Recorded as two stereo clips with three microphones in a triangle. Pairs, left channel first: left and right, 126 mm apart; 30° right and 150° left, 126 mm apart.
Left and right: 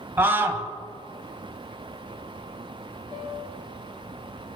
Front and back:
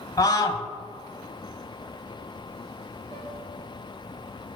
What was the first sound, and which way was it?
A scream, 35° right.